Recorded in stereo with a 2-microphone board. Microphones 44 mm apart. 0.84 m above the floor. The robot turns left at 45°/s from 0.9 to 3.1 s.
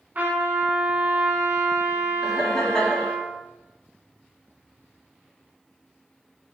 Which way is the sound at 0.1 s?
45° right.